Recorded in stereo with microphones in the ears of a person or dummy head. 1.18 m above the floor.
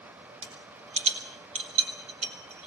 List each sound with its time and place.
0.4 s a rattle: 35° right (ahead or behind), 3.5 m